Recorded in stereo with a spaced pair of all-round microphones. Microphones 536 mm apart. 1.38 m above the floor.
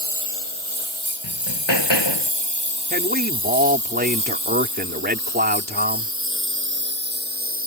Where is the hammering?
50° left (ahead or behind).